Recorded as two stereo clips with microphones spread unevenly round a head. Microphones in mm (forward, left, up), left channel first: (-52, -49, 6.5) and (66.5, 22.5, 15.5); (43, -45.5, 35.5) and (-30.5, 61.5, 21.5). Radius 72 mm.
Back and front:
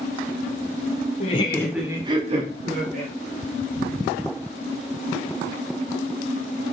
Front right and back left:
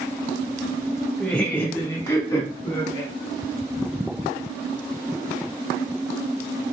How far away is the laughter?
About 0.7 m.